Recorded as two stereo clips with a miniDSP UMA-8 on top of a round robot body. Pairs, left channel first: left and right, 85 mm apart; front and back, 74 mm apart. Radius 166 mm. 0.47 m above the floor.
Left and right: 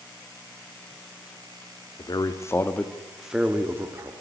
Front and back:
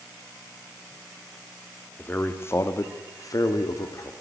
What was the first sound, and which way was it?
A man speaking, 60° left.